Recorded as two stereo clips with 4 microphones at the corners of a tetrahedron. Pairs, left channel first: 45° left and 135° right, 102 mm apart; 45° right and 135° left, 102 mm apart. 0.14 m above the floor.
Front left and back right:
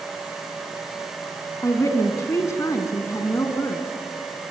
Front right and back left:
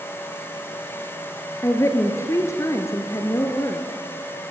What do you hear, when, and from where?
1.6 s a woman speaking: straight ahead, 1.6 m